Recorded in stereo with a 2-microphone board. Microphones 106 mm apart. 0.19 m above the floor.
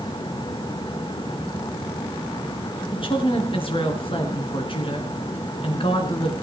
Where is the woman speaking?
55° left (ahead or behind), 2.5 m.